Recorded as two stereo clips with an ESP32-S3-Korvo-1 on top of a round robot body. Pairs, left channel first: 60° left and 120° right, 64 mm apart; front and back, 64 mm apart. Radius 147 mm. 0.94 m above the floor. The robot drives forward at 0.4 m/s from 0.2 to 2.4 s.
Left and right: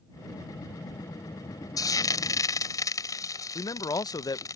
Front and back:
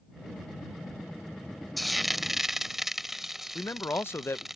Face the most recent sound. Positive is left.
turn(degrees=50)